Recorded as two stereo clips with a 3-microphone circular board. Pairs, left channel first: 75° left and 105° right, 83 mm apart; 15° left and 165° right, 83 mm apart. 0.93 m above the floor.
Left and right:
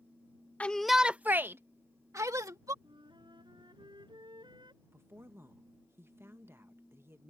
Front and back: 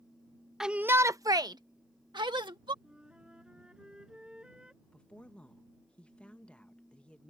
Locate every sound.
0.6 s a shout: 115° left; by 2.7 s 150° right
2.8 s a flute: 85° right
4.8 s a woman speaking: 55° right